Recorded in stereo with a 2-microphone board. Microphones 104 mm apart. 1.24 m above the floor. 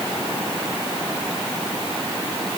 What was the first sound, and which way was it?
Only background noise.